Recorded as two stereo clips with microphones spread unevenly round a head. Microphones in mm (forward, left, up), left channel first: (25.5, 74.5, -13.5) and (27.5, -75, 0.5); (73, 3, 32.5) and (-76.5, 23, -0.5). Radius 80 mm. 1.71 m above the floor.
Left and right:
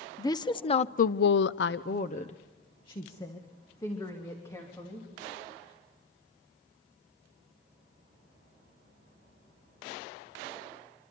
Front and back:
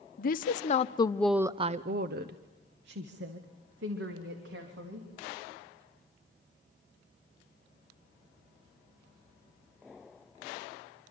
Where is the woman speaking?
20° left, 1.2 m; by 5.1 s 170° left, 3.5 m.